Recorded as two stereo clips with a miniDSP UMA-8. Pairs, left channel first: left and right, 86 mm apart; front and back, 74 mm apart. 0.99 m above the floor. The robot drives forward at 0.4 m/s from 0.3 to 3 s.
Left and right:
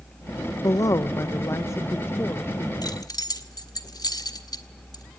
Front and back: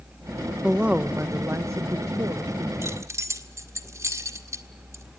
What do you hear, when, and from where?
0.6 s a woman speaking: 105° left, 0.7 m; by 2.7 s 155° left, 1.1 m
2.8 s keys jangling: 130° left, 1.5 m